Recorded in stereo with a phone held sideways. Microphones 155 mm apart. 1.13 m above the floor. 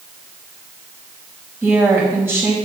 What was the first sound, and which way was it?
A woman speaking, 15° right (ahead or behind).